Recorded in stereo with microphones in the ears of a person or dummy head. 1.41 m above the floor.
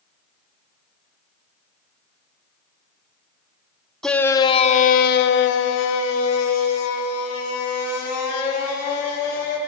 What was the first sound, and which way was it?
A shout, 5° left (ahead or behind).